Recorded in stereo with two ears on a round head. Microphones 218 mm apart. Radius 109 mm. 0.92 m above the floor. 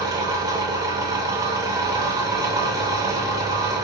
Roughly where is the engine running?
Centre.